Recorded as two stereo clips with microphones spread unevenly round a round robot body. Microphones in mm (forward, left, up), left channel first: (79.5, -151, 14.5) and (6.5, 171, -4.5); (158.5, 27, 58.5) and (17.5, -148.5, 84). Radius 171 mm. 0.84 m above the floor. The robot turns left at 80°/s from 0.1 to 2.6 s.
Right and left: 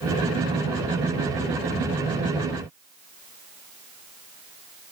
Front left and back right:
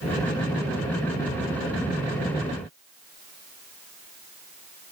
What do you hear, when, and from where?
Only background noise.